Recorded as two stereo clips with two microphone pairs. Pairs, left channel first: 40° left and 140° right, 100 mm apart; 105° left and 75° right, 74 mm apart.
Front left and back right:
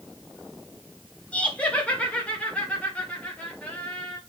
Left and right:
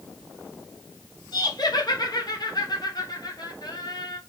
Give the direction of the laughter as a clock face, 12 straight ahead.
8 o'clock.